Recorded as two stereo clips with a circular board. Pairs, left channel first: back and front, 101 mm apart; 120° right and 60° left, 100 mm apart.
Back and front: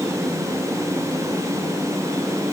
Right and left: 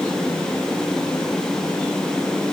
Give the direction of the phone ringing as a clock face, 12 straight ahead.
I don't hear a phone ringing.